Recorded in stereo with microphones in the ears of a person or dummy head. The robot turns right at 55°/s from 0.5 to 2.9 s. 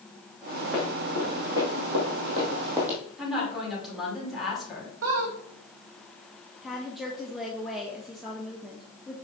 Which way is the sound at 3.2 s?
5° right (ahead or behind).